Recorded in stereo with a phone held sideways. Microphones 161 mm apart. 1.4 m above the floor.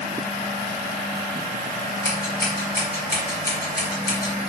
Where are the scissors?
70° left (ahead or behind), 1.5 m.